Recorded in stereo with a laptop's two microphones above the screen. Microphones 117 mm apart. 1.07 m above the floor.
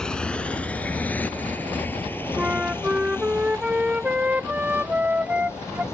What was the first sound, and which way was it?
A motorcycle, 10° left (ahead or behind).